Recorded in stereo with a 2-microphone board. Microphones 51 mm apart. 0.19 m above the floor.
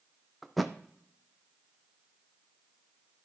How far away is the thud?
About 0.5 m.